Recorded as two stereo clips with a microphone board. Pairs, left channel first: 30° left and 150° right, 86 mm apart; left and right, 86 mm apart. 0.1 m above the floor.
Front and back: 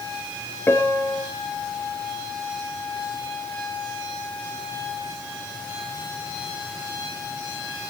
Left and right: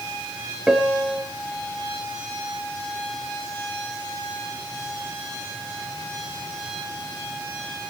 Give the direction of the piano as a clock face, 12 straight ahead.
12 o'clock.